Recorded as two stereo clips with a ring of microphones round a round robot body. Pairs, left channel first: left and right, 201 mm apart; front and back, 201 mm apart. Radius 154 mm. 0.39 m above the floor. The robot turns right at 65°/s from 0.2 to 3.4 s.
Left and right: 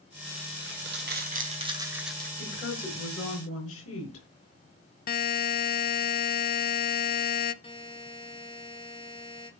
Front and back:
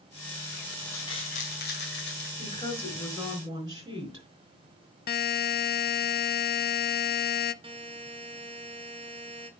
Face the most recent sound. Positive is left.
turn(degrees=135)